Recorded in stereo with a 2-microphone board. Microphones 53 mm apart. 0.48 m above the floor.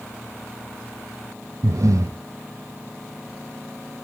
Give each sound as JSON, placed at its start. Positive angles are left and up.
{"t": 1.6, "sound": "breathing", "side_deg": -75, "distance_m": 0.7}